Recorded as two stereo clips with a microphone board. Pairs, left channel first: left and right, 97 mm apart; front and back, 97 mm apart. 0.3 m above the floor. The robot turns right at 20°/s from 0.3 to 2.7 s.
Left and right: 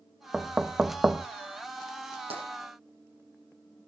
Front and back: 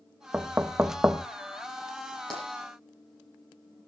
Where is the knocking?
155° right, 0.5 m; by 1.3 s 140° right, 0.5 m.